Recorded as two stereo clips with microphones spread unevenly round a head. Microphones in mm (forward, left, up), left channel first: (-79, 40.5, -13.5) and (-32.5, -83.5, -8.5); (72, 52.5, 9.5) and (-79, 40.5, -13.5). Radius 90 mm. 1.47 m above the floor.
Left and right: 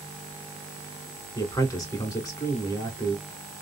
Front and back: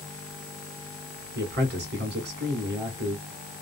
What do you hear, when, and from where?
1.4 s a man speaking: 175° left, 1.9 m